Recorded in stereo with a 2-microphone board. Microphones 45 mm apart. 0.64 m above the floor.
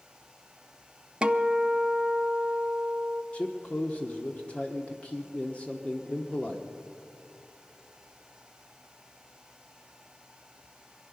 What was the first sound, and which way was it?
A guitar, 25° right (ahead or behind).